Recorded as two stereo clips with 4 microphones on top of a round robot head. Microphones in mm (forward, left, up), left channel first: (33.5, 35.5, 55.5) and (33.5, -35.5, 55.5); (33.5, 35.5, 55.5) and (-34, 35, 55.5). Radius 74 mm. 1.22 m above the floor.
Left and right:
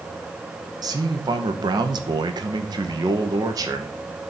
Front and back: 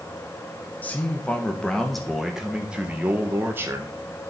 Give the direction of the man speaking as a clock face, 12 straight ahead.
2 o'clock.